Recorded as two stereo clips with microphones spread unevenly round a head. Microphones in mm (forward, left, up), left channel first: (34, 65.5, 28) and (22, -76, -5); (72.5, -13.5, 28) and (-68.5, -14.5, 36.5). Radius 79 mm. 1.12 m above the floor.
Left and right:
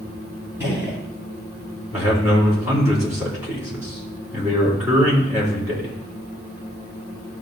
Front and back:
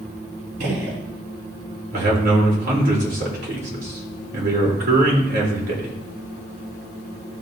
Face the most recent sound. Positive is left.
turn(degrees=-170)